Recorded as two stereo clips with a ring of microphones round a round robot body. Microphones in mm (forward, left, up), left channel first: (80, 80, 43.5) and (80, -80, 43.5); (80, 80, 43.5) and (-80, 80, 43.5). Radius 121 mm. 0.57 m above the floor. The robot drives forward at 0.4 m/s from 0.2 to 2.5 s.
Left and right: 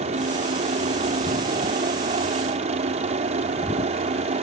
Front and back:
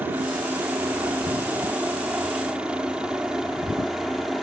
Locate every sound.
0.0 s a helicopter: 105° right; by 4.4 s 90° right